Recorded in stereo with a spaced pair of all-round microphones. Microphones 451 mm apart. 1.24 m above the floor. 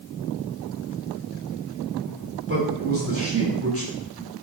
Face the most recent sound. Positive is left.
turn(degrees=-30)  # may be behind; listen again after turning